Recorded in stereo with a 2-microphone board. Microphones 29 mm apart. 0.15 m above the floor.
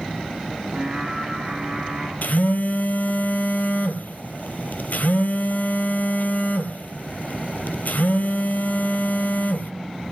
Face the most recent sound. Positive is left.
turn(degrees=70)  # may be behind; listen again after turning